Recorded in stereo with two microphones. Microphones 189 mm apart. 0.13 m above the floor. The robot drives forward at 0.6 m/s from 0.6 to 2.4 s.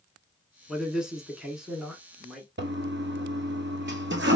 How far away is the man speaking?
About 1.1 m.